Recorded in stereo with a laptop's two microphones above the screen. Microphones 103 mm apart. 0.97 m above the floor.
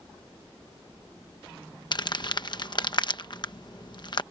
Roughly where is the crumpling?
Left.